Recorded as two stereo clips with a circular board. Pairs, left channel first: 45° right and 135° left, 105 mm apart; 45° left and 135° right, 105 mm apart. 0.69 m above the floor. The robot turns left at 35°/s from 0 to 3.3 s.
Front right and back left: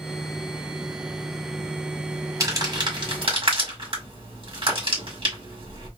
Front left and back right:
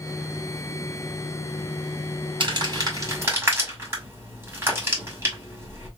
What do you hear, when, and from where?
2.4 s crumpling: 170° right, 2.0 m; by 5.9 s 160° left, 2.0 m